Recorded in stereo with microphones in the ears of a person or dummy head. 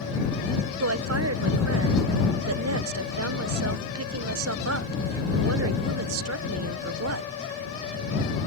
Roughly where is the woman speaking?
Right.